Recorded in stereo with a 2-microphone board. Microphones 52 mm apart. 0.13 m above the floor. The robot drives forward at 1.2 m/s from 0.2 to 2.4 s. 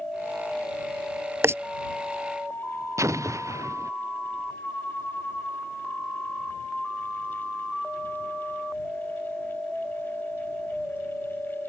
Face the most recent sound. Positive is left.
turn(degrees=-75)  # may be behind; listen again after turning